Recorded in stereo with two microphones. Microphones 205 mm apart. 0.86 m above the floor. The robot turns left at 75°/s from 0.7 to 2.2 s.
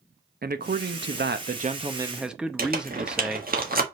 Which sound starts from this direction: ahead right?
A man speaking, at 0.4 s.